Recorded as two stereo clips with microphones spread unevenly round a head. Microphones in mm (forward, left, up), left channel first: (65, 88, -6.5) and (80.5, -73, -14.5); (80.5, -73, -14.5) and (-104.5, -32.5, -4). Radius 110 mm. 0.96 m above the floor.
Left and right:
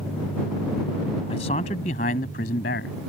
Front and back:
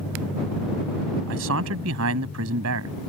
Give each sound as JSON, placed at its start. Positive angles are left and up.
{"t": 1.3, "sound": "a man speaking", "azimuth_deg": 160}